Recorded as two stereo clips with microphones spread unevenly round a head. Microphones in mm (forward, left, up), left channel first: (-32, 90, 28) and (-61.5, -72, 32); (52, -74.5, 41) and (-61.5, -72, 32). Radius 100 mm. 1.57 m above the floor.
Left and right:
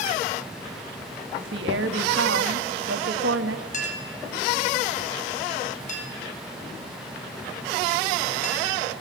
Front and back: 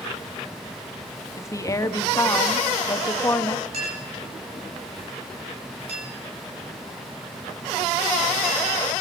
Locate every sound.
1.4 s a woman speaking: 65° right, 2.0 m
3.7 s a clink: 125° left, 5 m